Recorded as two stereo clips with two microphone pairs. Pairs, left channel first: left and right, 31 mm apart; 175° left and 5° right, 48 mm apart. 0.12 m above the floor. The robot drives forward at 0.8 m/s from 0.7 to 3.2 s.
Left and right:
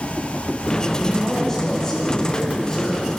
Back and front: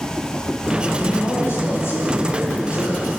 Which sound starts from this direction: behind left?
A man speaking, at 1.0 s.